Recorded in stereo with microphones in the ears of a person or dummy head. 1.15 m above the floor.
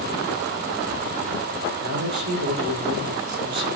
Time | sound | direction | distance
1.8 | a man speaking | 75° right (ahead or behind) | 3.5 m